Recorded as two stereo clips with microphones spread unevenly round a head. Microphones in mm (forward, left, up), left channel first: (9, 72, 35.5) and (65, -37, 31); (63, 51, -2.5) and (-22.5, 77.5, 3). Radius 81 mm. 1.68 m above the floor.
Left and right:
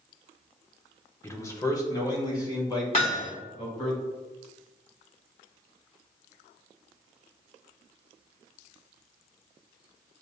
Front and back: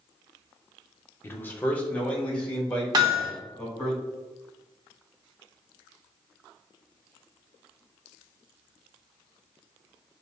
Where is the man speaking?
50° left, 0.7 m; by 3.9 s 60° left, 3.5 m.